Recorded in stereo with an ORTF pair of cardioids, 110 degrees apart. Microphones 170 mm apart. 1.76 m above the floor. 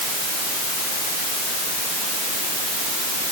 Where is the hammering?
No hammering in this recording.